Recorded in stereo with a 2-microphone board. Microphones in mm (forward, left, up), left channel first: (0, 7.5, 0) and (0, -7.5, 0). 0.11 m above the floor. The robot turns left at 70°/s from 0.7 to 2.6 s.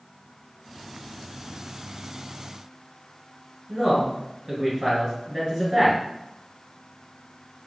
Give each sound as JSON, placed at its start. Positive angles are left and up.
{"t": 3.7, "sound": "a man speaking", "side_deg": -35, "distance_m": 2.0}